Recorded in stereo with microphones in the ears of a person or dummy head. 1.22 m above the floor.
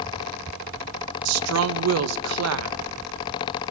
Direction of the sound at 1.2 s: 85° right.